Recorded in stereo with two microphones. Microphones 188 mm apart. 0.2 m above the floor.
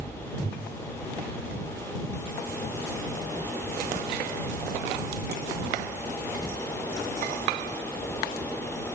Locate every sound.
Only background noise.